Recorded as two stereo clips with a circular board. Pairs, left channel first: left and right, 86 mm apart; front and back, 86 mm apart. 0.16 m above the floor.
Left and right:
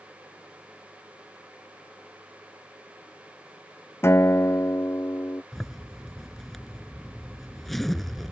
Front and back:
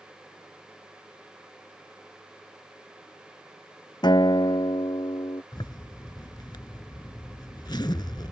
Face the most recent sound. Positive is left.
turn(degrees=5)